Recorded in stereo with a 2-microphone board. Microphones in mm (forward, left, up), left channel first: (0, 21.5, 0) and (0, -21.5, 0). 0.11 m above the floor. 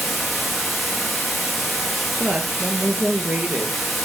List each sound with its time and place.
0.0 s running water: 5° right (ahead or behind), 1.7 m
2.2 s a woman speaking: 35° right (ahead or behind), 1.9 m